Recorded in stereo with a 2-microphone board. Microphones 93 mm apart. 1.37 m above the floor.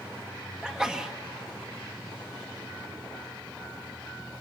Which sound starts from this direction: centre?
A sneeze, at 0.6 s.